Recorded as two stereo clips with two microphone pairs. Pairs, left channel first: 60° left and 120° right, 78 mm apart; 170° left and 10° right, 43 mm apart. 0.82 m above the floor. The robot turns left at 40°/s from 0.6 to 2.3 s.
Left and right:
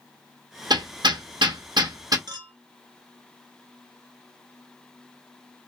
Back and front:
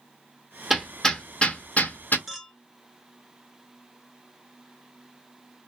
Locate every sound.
0.7 s hammering: 95° right, 0.6 m; by 2.2 s 155° right, 0.6 m
2.3 s a clink: 95° right, 0.7 m; by 2.5 s 100° right, 0.7 m